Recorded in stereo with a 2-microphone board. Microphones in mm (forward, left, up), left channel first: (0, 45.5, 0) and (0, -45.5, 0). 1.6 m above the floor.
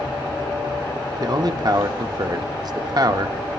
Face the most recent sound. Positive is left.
turn(degrees=-50)  # may be behind; listen again after turning